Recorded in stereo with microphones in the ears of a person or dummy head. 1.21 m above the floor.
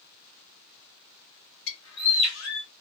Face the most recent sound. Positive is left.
turn(degrees=60)  # may be behind; listen again after turning